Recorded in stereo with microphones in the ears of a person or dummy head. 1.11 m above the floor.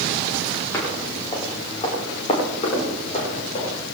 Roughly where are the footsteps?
Centre.